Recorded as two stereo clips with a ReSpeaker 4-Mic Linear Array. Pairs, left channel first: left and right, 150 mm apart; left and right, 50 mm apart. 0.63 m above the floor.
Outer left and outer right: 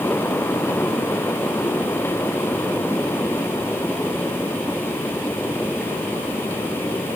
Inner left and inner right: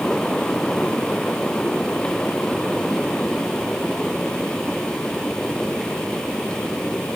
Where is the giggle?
No giggle in this recording.